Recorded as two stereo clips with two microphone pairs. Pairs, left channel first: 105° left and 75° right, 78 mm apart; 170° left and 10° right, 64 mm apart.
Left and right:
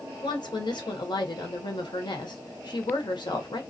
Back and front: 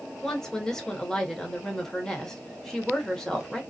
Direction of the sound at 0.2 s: 90° left.